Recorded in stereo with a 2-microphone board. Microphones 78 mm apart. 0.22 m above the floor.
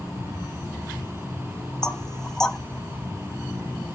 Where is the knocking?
10° left (ahead or behind), 0.7 m.